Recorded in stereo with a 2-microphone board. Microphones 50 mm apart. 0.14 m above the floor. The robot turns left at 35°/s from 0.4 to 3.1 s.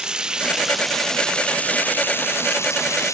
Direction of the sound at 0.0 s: 165° right.